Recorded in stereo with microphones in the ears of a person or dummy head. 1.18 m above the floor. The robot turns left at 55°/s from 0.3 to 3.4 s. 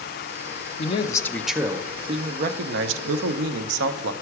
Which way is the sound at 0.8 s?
35° left.